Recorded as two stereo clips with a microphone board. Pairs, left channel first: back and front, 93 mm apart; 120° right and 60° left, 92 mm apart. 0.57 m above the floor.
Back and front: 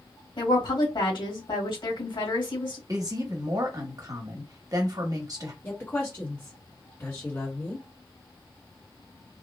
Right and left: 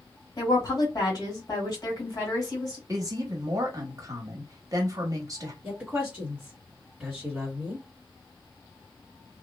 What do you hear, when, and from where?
0.4 s a woman speaking: 165° right, 1.7 m
2.9 s a woman speaking: 30° left, 1.0 m
5.6 s a woman speaking: 135° left, 1.5 m